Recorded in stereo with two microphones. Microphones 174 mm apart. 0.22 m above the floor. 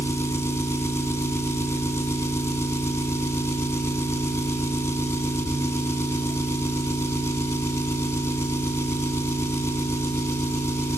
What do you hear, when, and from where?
0.0 s an engine running: 15° left (ahead or behind), 0.7 m